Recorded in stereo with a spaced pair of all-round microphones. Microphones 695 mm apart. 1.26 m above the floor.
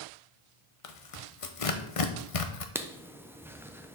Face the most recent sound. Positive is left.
turn(degrees=-5)  # may be behind; listen again after turning